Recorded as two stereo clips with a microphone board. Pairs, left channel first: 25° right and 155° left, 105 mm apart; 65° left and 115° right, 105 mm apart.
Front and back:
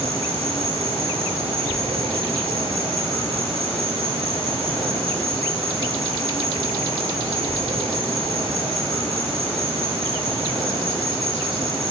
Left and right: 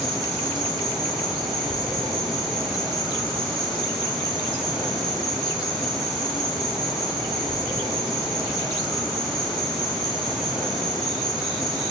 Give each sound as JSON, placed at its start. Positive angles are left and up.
{"t": 0.0, "sound": "an insect", "azimuth_deg": 165, "distance_m": 3.5}